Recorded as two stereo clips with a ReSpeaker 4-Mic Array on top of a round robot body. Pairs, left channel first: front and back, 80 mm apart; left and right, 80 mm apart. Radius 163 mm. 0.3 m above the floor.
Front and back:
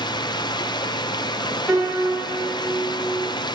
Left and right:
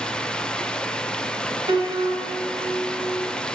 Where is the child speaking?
I don't hear a child speaking.